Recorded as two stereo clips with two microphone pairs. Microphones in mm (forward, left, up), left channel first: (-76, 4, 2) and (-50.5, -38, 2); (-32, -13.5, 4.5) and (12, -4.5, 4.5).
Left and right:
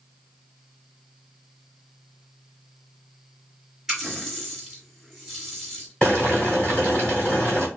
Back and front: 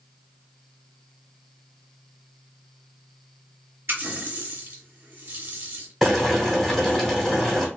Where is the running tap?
25° left, 1.7 m.